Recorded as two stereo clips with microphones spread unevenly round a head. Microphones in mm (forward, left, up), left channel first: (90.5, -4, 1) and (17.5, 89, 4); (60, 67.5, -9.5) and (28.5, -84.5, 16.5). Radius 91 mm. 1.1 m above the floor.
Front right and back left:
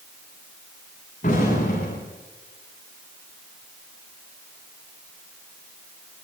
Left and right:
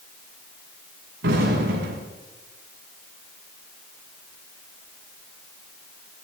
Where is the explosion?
110° right, 7.5 m.